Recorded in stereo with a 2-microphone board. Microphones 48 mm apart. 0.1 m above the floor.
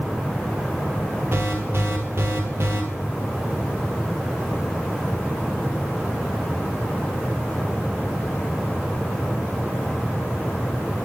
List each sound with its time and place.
1.3 s an alarm: 60° right (ahead or behind), 1.7 m